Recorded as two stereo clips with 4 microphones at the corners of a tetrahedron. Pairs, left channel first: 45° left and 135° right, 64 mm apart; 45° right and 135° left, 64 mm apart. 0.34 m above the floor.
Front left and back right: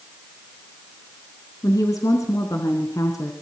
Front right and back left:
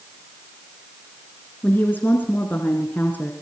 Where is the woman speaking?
15° left, 3.5 m.